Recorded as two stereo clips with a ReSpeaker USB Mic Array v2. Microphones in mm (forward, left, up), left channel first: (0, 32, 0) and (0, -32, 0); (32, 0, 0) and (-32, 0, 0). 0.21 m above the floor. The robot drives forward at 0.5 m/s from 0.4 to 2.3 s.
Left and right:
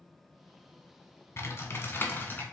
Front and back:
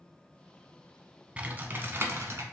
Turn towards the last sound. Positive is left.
turn(degrees=145)